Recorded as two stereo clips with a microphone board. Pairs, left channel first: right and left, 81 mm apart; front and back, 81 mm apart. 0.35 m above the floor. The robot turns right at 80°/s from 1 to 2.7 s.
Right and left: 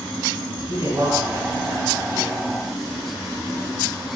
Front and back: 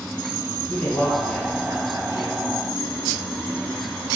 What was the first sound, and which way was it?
A man speaking, 70° left.